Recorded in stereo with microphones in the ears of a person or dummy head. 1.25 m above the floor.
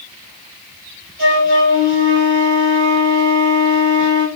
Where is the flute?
45° right (ahead or behind), 3.5 m.